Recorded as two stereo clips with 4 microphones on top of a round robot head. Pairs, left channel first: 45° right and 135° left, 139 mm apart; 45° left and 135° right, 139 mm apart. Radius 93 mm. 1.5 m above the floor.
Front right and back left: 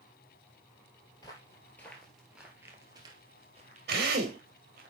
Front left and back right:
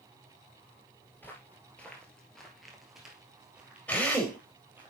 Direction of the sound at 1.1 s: 20° right.